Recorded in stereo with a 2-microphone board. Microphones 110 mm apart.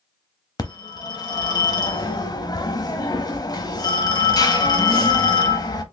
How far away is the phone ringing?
About 0.7 m.